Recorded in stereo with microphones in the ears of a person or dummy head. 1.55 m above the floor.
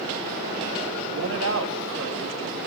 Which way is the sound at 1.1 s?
75° right (ahead or behind).